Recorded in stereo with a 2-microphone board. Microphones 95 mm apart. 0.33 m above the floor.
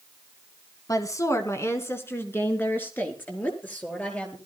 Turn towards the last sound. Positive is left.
turn(degrees=15)  # may be behind; listen again after turning